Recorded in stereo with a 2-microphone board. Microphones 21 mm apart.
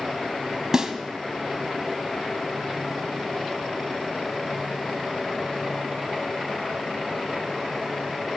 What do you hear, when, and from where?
0.7 s a snare drum: 25° right (ahead or behind), 1.3 m